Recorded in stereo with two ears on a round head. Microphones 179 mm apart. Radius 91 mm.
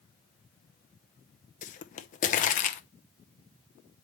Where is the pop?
40° left (ahead or behind), 0.7 m.